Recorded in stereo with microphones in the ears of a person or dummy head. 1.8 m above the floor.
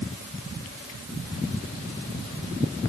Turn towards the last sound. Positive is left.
No sound to turn to.